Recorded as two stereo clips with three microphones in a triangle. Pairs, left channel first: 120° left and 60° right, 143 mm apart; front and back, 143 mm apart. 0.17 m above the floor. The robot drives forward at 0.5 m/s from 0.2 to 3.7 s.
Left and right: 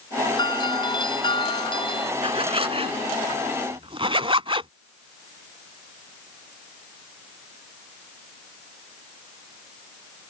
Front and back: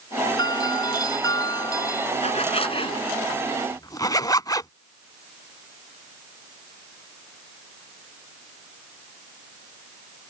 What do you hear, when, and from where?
0.4 s a doorbell: 65° left; by 2.1 s 70° left
2.2 s a zipper: 25° right; by 4.7 s 45° right